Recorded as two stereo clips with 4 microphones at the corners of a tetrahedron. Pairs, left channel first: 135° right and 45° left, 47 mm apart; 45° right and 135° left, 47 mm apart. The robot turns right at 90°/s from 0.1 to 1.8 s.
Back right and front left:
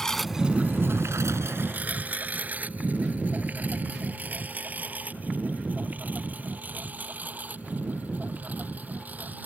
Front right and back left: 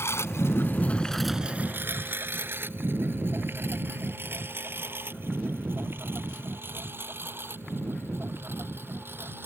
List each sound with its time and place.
0.0 s a lawn mower: 55° right; by 9.5 s 95° left